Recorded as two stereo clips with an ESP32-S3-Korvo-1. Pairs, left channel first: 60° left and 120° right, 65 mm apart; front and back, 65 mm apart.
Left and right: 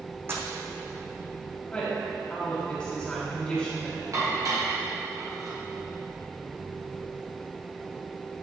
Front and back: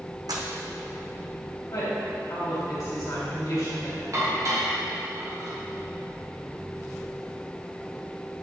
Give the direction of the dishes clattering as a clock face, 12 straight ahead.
5 o'clock.